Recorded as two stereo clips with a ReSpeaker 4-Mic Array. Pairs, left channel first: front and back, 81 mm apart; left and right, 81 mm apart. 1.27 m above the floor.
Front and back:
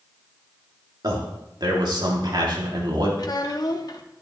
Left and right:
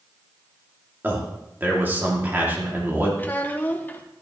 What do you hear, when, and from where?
1.0 s a man speaking: 155° right, 2.5 m
3.2 s a child speaking: 25° left, 1.2 m